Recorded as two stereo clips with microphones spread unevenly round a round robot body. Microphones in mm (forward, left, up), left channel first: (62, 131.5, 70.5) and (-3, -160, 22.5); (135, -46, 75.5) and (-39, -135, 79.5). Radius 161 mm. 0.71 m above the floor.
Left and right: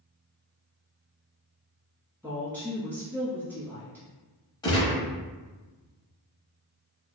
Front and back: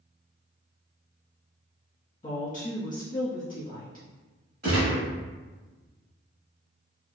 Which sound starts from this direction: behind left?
A gunshot, at 4.6 s.